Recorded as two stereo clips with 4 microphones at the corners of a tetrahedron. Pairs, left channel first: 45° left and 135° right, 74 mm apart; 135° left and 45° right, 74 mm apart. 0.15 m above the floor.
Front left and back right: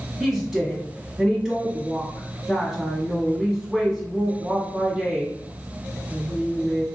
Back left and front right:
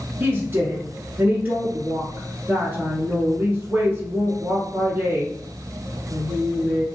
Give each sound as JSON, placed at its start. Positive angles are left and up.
{"t": 0.2, "sound": "a woman speaking", "azimuth_deg": -60, "distance_m": 1.5}